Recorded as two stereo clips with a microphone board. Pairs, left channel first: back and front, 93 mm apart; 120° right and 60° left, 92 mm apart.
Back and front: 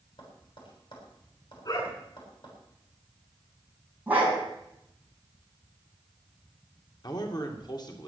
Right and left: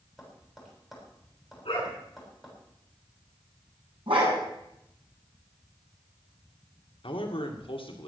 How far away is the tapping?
About 7 m.